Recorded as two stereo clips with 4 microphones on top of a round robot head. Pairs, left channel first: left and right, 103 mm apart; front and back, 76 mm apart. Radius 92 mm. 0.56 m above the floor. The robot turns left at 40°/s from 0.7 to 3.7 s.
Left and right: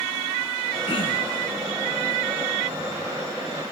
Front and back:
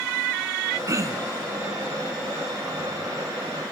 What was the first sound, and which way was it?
Throat clearing, 140° left.